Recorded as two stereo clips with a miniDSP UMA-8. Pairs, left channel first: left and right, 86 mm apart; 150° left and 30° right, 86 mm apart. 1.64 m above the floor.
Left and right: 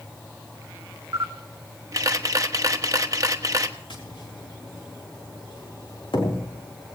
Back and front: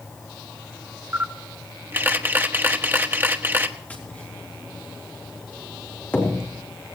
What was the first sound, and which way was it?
A camera shutter, 80° right.